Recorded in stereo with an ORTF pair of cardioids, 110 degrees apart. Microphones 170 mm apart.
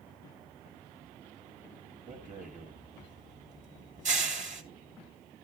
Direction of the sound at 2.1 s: 45° right.